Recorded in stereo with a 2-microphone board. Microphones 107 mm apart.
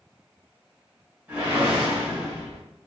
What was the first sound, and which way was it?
A whoosh, 15° right (ahead or behind).